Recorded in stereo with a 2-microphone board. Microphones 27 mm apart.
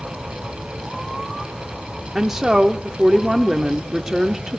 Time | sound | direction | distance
2.1 | a woman speaking | 15° right (ahead or behind) | 0.8 m